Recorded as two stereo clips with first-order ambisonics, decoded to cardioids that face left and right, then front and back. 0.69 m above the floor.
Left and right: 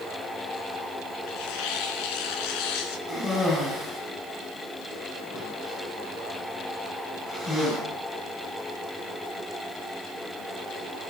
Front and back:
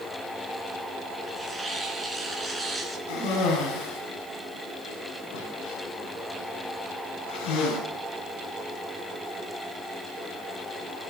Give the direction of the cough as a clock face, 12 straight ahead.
11 o'clock.